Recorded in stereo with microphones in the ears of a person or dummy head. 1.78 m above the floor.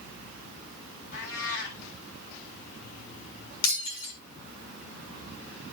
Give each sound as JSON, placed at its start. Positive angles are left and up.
{"t": 1.1, "sound": "a cat meowing", "side_deg": 70, "distance_m": 7.0}
{"t": 3.6, "sound": "breaking glass", "side_deg": 70, "distance_m": 7.0}